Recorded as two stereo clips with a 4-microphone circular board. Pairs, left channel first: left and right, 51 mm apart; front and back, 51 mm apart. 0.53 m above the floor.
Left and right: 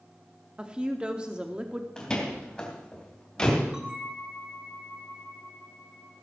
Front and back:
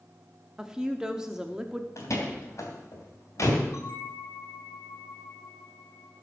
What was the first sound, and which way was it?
A woman speaking, 125° right.